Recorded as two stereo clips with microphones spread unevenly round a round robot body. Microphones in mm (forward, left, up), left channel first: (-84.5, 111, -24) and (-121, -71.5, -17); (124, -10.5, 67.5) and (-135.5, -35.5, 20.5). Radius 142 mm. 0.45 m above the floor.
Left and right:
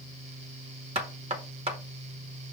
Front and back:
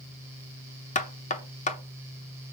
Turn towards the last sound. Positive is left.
turn(degrees=-55)